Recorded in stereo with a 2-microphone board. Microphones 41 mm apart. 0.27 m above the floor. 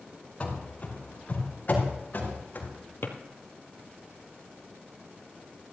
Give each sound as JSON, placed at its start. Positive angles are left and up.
{"t": 0.4, "sound": "running footsteps", "side_deg": 30, "distance_m": 4.5}
{"t": 3.0, "sound": "a drawer", "side_deg": 70, "distance_m": 1.7}